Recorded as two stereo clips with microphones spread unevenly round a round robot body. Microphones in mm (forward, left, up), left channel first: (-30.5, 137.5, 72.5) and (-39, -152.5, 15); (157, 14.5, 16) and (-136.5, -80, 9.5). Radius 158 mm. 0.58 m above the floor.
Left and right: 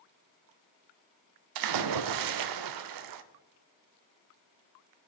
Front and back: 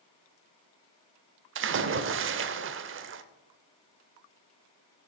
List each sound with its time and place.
1.6 s a splash: 110° right, 0.6 m